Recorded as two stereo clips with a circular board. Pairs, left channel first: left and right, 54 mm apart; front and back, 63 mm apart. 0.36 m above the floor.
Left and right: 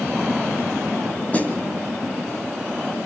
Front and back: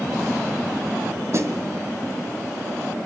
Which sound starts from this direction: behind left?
A snare drum, at 1.3 s.